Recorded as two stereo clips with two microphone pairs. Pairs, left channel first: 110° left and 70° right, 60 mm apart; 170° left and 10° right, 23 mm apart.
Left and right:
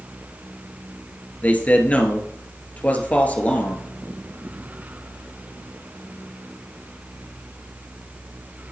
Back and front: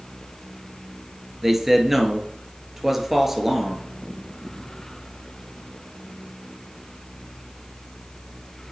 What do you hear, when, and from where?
1.4 s a man speaking: 55° left, 1.4 m